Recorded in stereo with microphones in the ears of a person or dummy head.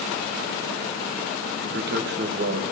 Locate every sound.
1.6 s a man speaking: 55° right (ahead or behind), 1.2 m